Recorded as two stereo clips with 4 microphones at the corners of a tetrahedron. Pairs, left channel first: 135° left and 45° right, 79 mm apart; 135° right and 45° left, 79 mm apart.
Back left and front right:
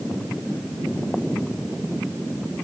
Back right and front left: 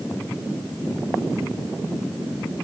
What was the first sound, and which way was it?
Only background noise.